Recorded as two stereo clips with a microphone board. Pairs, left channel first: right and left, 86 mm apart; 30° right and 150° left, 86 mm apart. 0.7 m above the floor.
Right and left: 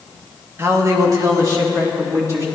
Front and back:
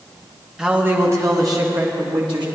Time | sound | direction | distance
0.6 | a man speaking | 75° left | 1.2 m